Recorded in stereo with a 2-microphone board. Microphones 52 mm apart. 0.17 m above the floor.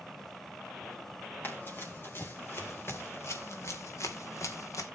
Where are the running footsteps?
40° left (ahead or behind), 4 m; by 4.9 s 85° left, 1.9 m.